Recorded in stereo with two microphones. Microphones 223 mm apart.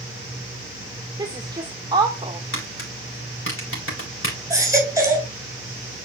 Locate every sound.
1.2 s a woman speaking: 20° right (ahead or behind), 1.7 m
2.5 s tapping: 70° left (ahead or behind), 4 m
4.5 s a baby crying: 15° right (ahead or behind), 3 m